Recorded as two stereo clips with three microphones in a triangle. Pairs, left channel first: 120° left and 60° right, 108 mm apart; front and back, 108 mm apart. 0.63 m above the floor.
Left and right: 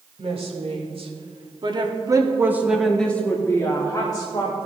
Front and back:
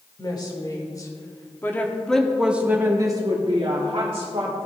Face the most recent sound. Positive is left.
turn(degrees=160)